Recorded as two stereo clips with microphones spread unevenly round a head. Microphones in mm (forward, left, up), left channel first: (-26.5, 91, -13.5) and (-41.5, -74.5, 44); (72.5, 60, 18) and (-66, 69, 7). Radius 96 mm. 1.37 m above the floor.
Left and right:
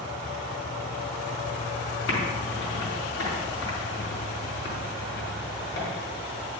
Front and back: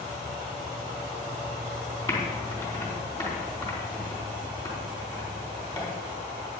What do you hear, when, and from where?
2.1 s typing on a keyboard: 60° left, 4 m